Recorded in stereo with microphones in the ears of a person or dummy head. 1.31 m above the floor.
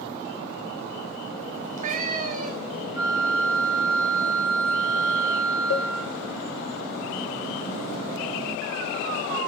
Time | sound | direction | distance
1.5 | a cat meowing | 40° right (ahead or behind) | 0.9 m
3.0 | a flute | 15° right (ahead or behind) | 6 m
5.7 | a cowbell | 65° left (ahead or behind) | 1.0 m